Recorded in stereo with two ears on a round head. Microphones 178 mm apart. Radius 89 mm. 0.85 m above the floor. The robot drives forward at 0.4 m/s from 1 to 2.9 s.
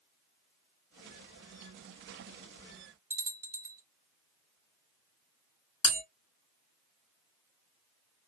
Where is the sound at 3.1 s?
10° right (ahead or behind), 0.7 m.